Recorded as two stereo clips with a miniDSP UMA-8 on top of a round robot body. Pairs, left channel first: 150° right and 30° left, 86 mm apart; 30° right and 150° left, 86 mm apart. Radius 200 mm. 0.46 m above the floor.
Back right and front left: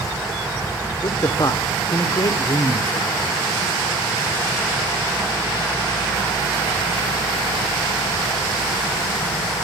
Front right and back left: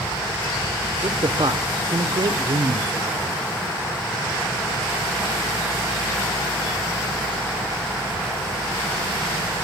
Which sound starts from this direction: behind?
A man speaking, at 1.0 s.